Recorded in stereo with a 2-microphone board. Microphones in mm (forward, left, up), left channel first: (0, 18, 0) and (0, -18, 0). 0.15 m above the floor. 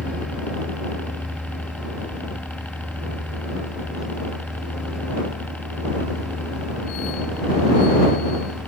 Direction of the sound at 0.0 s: 45° left (ahead or behind).